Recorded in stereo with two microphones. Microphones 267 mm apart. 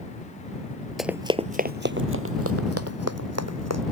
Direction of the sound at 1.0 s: Centre (ahead or behind).